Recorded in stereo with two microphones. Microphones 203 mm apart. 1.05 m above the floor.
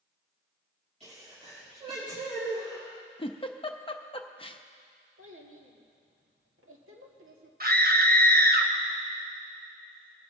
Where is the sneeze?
30° right (ahead or behind), 5.5 m.